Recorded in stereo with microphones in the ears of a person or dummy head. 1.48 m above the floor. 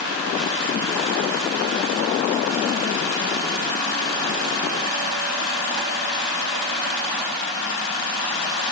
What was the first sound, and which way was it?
Only background noise.